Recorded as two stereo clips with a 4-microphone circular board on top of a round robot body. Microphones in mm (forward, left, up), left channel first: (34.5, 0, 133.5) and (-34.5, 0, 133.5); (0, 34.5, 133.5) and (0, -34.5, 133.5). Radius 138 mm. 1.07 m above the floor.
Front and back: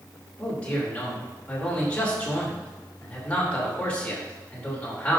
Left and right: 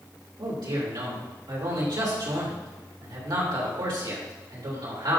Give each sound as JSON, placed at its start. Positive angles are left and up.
{"t": 0.4, "sound": "a man speaking", "azimuth_deg": -70, "distance_m": 3.5}